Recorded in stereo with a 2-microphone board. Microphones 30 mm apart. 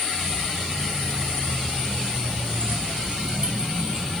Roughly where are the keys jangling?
Right.